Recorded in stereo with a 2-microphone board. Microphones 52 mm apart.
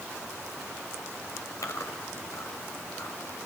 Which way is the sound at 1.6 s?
75° left (ahead or behind).